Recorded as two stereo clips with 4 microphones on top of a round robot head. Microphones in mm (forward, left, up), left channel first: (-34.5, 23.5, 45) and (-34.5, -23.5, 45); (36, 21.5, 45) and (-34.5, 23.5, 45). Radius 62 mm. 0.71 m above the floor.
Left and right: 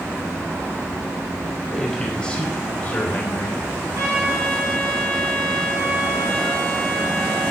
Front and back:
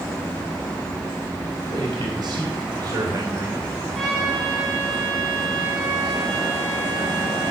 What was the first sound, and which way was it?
A man speaking, 175° left.